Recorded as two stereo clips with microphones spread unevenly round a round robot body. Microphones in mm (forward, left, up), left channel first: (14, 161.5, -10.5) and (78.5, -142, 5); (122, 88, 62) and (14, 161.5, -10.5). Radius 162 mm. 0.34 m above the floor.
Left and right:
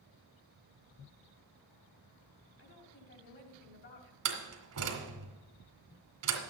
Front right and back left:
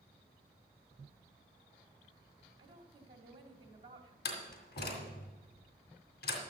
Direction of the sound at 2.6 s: 150° left.